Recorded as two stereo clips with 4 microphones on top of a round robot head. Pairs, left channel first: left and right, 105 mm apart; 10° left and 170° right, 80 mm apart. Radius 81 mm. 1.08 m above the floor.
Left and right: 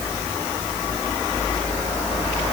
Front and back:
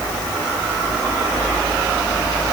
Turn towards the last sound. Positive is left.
No sound to turn to.